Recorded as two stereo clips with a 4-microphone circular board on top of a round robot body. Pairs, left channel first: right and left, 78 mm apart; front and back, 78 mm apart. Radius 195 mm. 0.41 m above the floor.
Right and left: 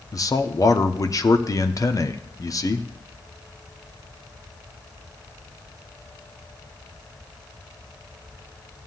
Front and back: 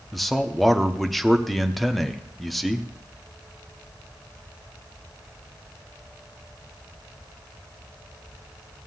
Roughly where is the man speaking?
Right.